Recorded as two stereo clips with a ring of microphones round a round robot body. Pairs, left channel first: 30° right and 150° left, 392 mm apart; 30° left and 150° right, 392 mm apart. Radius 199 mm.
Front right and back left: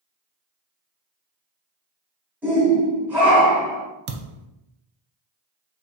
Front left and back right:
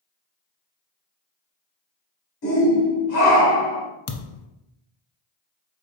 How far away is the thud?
About 0.5 m.